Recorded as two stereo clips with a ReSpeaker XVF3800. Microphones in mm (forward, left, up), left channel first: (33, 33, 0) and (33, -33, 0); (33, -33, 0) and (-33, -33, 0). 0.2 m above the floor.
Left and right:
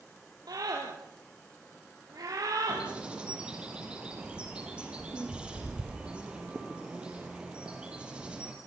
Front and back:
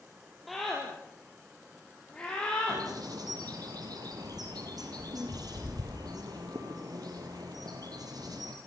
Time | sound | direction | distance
0.5 | a scream | 90° right | 4.5 m
2.7 | a bird | 165° right | 4 m